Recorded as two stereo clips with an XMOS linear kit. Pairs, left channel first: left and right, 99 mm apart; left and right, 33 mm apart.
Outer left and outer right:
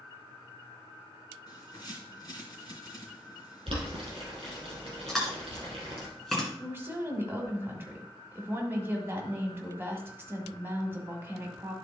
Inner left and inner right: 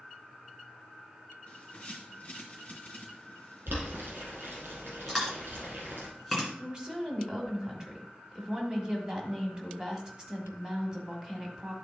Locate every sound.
1.5 s a bird: 40° left (ahead or behind), 2.5 m
3.7 s boiling: 70° right (ahead or behind), 4 m
5.1 s chewing: centre (ahead or behind), 2 m
6.6 s a woman speaking: 25° right (ahead or behind), 1.6 m